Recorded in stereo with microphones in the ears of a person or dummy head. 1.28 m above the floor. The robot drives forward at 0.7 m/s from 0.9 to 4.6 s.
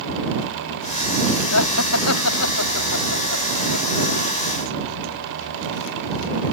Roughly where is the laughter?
Left.